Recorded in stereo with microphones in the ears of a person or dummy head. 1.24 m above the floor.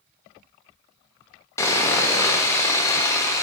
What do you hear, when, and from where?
1.6 s sawing: 15° left (ahead or behind), 0.7 m